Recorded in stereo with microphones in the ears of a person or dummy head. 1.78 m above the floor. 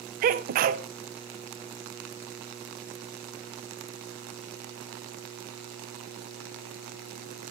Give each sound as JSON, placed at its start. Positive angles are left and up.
{"t": 0.2, "sound": "a sneeze", "side_deg": -45, "distance_m": 0.6}